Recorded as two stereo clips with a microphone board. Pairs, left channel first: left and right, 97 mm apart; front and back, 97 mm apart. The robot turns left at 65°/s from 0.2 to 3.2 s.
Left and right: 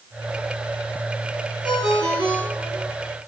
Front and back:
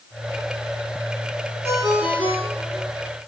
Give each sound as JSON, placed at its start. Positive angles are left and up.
{"t": 1.6, "sound": "a ringtone", "azimuth_deg": -120, "distance_m": 3.0}